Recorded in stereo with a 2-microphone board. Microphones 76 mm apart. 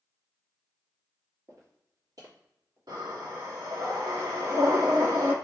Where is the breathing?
65° right (ahead or behind), 1.7 m.